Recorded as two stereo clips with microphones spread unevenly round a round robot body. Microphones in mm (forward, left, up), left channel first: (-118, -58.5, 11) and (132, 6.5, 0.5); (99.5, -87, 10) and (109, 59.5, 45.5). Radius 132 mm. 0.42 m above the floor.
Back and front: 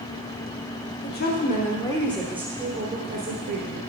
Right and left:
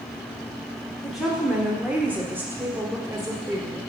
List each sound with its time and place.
1.0 s a woman speaking: 165° right, 1.2 m; by 3.8 s 10° left, 1.5 m